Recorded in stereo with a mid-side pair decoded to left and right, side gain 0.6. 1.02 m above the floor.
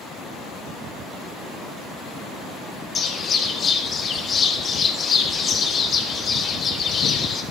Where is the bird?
40° left, 4 m.